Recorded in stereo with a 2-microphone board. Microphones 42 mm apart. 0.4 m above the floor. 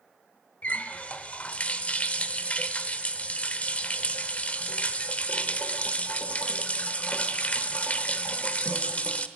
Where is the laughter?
I don't hear laughter.